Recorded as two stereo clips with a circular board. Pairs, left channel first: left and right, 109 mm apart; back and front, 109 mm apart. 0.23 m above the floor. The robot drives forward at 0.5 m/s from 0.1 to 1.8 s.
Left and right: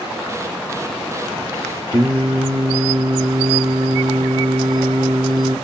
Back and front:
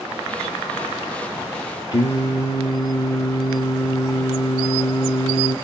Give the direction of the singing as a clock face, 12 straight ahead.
5 o'clock.